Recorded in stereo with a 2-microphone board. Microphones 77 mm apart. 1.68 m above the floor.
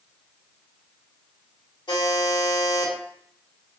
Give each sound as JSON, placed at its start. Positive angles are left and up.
{"t": 1.9, "sound": "a buzzer", "side_deg": 80, "distance_m": 1.8}